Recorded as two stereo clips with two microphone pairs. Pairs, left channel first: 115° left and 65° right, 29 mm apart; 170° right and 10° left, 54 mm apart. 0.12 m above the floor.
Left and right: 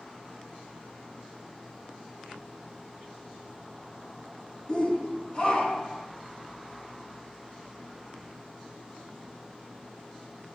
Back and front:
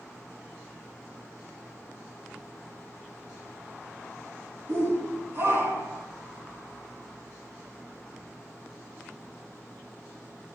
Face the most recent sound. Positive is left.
turn(degrees=50)